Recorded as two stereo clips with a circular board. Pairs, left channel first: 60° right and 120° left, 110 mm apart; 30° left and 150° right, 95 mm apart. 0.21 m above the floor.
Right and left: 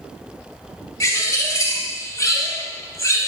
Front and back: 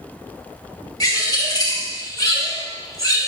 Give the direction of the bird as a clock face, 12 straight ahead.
12 o'clock.